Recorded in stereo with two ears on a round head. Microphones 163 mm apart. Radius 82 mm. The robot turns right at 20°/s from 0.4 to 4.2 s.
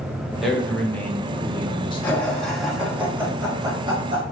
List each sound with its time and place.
0.4 s a man speaking: straight ahead, 0.8 m; by 2.3 s 40° left, 0.8 m
2.0 s laughter: 170° left, 1.7 m; by 4.2 s 145° right, 1.7 m